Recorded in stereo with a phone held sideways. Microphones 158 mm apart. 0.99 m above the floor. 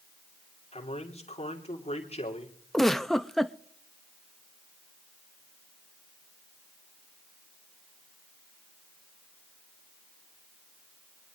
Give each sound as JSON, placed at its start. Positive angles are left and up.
{"t": 0.7, "sound": "a man speaking", "side_deg": 40, "distance_m": 2.5}
{"t": 2.7, "sound": "a giggle", "side_deg": 0, "distance_m": 0.6}